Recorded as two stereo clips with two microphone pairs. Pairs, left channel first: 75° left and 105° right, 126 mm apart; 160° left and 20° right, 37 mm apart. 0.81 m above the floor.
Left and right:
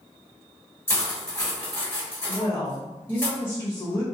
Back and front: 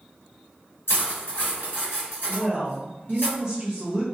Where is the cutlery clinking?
145° left, 1.5 m.